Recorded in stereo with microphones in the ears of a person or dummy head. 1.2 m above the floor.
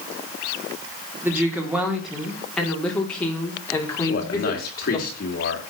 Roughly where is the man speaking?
Left.